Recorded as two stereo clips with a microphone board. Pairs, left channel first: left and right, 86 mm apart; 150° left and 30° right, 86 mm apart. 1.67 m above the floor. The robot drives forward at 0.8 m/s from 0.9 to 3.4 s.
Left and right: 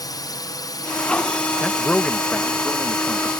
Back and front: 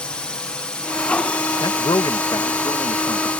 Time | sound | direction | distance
0.0 | a drone | 75° left | ?
1.6 | a man speaking | 165° left | ?